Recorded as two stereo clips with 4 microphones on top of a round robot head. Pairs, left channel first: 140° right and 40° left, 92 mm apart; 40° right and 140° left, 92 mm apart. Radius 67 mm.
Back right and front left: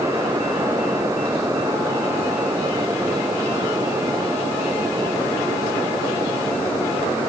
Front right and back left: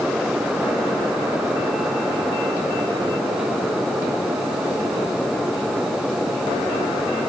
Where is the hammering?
I don't hear hammering.